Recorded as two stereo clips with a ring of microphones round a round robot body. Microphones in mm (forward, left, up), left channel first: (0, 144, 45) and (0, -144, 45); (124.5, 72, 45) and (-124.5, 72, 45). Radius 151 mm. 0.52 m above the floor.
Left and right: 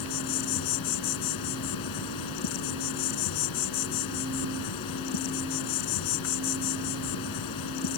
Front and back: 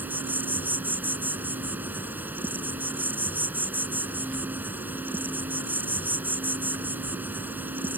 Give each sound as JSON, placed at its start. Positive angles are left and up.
{"t": 0.0, "sound": "an insect", "azimuth_deg": 95}